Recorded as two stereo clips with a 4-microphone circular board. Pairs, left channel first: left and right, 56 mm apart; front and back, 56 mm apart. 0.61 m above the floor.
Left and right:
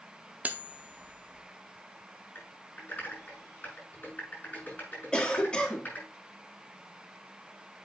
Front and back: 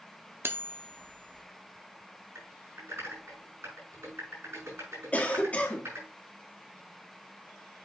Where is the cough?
30° left, 1.3 m.